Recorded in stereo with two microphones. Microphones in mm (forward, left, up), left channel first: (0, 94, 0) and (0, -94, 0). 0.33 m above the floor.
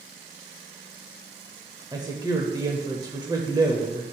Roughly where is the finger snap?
No finger snap in this recording.